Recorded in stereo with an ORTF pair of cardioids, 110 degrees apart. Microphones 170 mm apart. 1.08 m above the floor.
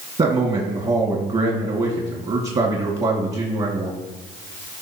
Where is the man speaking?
40° right, 2 m.